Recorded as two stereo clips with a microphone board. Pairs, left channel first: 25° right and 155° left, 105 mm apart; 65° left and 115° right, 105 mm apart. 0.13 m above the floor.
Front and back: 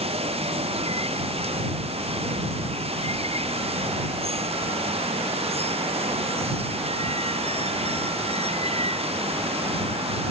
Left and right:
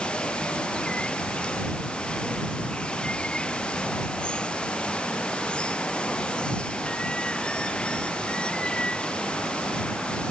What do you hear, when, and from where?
0.0 s running water: 145° left